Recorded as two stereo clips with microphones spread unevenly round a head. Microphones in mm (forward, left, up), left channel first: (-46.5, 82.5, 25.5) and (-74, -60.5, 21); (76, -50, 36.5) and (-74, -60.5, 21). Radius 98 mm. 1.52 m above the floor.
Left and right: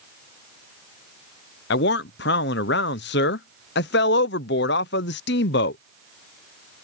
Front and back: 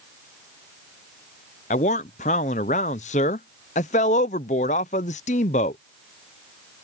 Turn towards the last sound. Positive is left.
turn(degrees=60)